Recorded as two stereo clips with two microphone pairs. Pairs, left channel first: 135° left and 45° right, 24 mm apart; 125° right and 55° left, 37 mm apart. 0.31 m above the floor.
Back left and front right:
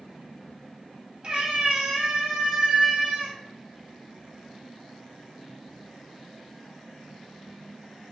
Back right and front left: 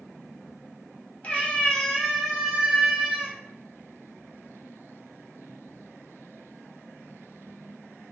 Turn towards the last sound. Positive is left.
turn(degrees=-5)